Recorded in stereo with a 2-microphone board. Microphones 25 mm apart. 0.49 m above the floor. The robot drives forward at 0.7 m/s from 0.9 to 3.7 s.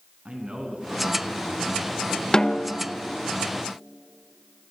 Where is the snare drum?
30° left (ahead or behind), 1.0 m; by 2.8 s 35° left (ahead or behind), 0.8 m.